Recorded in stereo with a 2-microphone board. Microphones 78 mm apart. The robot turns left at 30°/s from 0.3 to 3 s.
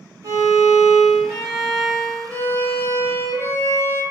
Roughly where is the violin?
Behind right.